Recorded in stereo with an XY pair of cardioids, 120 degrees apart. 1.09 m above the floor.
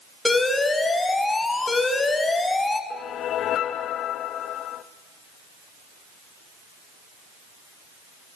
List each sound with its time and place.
0.2 s an alarm: 15° left, 4.5 m
2.9 s a whoosh: 60° left, 1.0 m